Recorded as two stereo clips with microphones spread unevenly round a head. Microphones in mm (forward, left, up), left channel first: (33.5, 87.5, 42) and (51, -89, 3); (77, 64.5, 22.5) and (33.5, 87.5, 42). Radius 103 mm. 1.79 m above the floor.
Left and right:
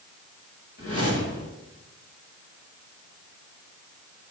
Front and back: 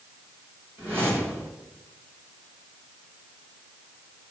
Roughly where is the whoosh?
Left.